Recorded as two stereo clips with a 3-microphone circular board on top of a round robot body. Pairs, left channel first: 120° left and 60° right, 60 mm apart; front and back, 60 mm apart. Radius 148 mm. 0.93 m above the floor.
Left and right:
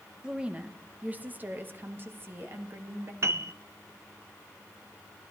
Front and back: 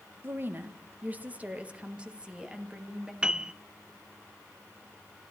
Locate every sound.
0.2 s a woman speaking: 135° right, 1.2 m; by 3.1 s 100° right, 2.5 m
3.2 s a piano: 105° right, 0.5 m